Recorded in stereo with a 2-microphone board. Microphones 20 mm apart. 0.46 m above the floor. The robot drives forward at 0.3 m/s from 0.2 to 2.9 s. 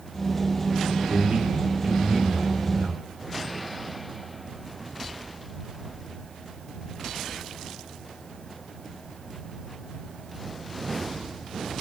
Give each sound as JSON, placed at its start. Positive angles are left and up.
{"t": 1.1, "sound": "a man speaking", "side_deg": -70, "distance_m": 6.5}